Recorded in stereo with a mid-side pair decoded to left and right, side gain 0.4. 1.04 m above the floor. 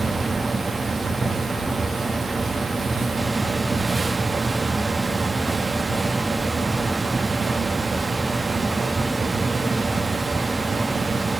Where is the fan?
40° right, 1.7 m.